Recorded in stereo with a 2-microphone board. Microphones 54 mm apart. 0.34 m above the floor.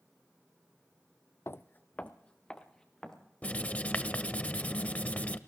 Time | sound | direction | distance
1.5 | footsteps | 55° left (ahead or behind) | 0.5 m
3.4 | writing | 25° left (ahead or behind) | 0.7 m